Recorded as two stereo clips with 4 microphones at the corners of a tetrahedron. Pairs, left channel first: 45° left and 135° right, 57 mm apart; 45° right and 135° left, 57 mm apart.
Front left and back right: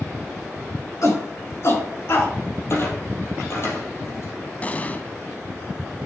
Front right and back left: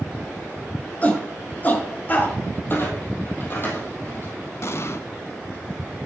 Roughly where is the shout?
Ahead.